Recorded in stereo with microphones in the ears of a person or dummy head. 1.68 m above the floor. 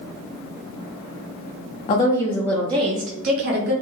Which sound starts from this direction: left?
A woman speaking, at 1.9 s.